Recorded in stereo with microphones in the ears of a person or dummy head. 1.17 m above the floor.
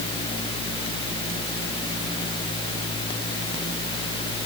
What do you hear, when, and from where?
Only background noise.